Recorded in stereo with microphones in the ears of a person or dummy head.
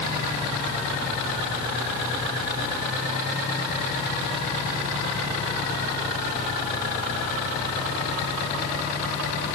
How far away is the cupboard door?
I don't hear a cupboard door.